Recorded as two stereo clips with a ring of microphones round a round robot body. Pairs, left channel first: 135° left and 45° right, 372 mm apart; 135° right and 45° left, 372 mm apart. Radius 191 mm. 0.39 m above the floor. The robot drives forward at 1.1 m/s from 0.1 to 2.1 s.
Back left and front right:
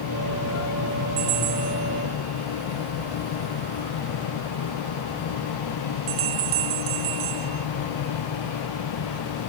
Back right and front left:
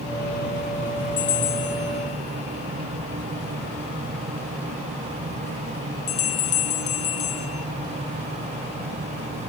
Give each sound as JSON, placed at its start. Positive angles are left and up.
{"t": 1.2, "sound": "a bell", "azimuth_deg": -75}